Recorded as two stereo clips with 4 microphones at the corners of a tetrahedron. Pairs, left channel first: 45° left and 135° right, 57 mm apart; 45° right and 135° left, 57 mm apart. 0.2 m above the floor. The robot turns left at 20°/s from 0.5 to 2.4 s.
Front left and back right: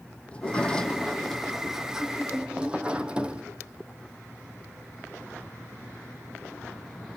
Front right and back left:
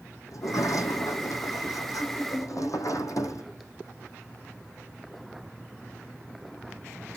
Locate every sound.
0.3 s a sliding door: 25° right, 1.3 m; by 3.4 s 65° right, 1.3 m